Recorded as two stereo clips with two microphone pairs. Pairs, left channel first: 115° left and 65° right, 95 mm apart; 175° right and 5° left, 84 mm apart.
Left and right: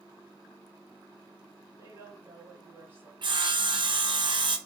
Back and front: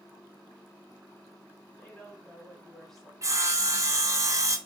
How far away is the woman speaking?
About 1.8 m.